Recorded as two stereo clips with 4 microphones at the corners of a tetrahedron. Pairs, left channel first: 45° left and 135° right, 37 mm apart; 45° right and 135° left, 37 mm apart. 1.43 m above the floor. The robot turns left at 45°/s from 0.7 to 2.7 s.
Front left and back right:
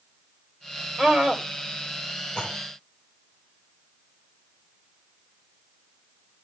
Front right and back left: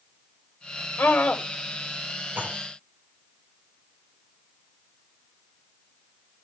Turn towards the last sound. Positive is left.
turn(degrees=90)